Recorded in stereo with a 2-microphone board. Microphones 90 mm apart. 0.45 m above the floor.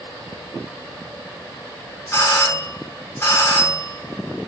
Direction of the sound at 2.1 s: 25° left (ahead or behind).